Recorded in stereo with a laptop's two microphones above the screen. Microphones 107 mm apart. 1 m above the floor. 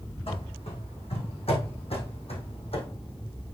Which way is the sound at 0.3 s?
65° left (ahead or behind).